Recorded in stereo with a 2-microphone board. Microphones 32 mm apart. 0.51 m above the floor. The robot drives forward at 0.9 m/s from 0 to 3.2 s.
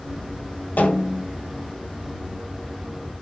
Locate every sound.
0.8 s a snare drum: 70° left (ahead or behind), 7.5 m